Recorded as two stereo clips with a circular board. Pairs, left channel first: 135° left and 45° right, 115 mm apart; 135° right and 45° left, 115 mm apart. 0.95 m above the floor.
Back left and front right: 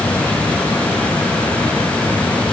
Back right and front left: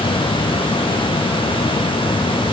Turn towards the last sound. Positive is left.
No sound to turn to.